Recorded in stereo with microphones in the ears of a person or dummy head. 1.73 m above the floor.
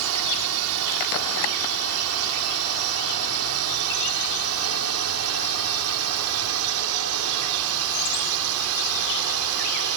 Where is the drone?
75° right (ahead or behind); by 10.0 s 80° right.